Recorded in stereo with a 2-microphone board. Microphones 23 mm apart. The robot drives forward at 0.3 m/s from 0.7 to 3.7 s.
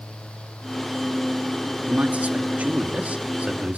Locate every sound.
1.9 s a man speaking: 80° right, 2 m; by 3.8 s 65° right (ahead or behind), 2 m